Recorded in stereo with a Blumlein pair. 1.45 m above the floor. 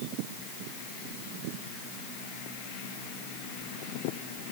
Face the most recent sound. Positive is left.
No sound to turn to.